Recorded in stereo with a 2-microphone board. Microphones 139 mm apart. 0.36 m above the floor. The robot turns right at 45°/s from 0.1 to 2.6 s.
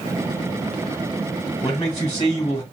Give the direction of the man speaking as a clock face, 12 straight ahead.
9 o'clock.